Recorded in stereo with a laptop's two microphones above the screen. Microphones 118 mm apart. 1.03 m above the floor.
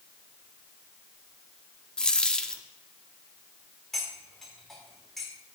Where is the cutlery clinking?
Centre (ahead or behind), 2.0 m.